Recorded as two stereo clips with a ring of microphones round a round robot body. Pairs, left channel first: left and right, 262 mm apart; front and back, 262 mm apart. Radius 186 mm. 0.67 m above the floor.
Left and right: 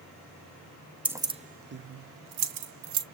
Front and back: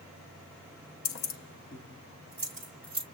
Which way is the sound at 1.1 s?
5° right.